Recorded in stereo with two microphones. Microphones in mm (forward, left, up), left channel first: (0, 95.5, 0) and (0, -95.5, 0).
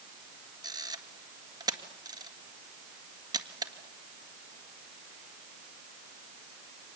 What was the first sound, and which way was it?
A camera shutter, 20° right (ahead or behind).